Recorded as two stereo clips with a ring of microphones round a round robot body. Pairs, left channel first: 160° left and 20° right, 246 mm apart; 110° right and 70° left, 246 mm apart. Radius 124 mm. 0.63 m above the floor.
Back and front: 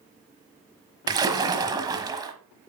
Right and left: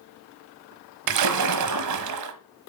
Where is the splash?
50° left, 1.0 m.